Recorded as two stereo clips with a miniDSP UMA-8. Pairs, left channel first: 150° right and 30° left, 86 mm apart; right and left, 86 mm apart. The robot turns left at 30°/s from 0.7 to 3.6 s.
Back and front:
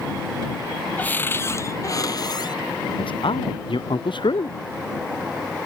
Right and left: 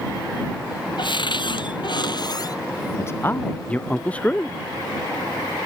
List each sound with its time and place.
1.0 s a cupboard door: 80° right; by 2.6 s 125° right
3.0 s a man speaking: 145° right; by 4.6 s 165° right